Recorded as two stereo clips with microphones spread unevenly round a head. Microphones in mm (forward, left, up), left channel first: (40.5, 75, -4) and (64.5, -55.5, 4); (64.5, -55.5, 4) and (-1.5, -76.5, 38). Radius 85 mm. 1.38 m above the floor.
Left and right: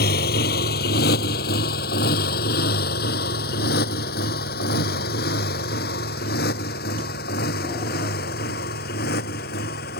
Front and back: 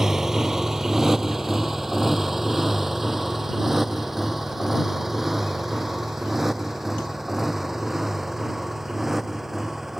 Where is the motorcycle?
115° left; by 10.0 s 110° left.